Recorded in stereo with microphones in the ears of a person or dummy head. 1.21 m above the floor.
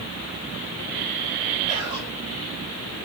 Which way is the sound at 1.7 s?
35° right (ahead or behind).